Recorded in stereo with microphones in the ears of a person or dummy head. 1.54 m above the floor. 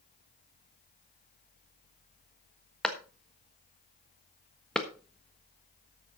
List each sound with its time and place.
2.8 s a clap: centre (ahead or behind), 1.4 m